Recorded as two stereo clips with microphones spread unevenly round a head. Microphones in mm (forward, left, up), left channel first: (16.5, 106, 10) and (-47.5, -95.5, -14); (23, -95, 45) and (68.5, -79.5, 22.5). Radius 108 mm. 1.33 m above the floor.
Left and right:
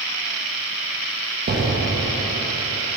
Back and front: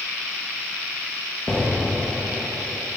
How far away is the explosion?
About 0.7 m.